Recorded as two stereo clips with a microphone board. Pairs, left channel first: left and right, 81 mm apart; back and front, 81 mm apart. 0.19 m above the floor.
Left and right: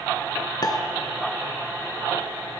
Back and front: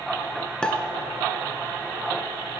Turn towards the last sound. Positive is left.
turn(degrees=105)